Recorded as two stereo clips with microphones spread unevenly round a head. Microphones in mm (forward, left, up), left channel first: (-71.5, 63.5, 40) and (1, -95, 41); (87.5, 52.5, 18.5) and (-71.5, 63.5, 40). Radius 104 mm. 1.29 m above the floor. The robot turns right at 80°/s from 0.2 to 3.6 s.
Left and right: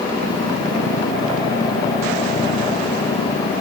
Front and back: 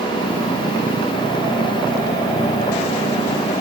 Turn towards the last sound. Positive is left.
No sound to turn to.